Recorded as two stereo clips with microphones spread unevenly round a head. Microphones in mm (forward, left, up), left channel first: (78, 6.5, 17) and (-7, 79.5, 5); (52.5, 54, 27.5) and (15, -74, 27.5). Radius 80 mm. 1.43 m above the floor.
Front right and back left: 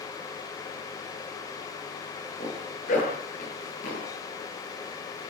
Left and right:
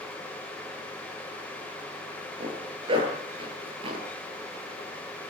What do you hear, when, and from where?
2.4 s a zipper: 55° right, 9 m